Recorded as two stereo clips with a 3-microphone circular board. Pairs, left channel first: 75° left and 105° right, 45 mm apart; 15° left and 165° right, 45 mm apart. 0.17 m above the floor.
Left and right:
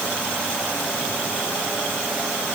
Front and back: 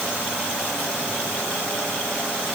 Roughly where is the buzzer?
No buzzer in this recording.